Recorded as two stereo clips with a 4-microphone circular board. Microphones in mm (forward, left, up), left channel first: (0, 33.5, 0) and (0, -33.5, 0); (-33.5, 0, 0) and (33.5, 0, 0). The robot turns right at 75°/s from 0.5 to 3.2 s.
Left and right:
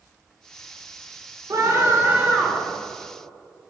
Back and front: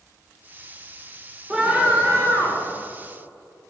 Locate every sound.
1.5 s a scream: 75° right, 2.0 m; by 2.7 s 10° left, 2.0 m